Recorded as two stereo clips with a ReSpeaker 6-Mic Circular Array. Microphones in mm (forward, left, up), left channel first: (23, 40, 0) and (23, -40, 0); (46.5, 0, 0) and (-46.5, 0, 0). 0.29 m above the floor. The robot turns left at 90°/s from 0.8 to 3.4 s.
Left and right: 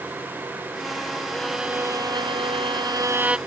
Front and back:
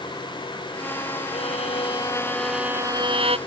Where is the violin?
15° left; by 3.4 s 170° right.